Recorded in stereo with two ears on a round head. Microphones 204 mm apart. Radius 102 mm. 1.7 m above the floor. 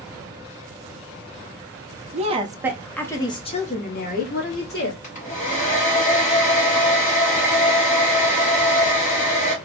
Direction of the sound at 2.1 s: 35° right (ahead or behind).